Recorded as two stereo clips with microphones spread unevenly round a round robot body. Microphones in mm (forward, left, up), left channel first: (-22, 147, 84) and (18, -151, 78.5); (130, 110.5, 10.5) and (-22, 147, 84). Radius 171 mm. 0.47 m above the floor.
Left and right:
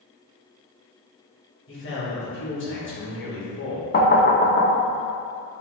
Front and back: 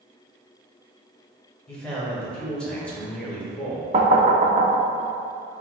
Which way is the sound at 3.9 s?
115° left.